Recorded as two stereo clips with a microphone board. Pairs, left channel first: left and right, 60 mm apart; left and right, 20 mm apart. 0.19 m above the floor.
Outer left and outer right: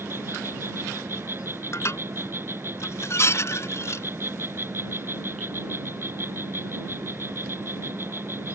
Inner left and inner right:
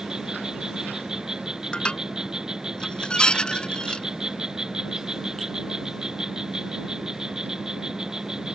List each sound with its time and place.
0.0 s an insect: 40° right (ahead or behind)
1.7 s dishes clattering: 50° left (ahead or behind)